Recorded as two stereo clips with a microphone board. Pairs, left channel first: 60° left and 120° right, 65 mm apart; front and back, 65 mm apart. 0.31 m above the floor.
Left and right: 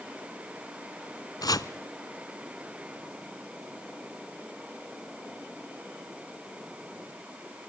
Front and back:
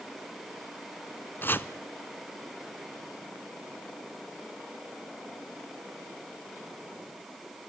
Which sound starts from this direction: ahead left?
Chopping, at 1.4 s.